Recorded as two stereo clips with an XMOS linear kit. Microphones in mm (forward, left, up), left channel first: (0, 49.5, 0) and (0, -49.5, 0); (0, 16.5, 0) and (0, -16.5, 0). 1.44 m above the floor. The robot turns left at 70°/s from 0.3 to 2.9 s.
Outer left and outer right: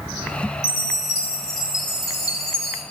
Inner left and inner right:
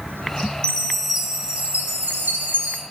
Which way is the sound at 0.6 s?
30° left.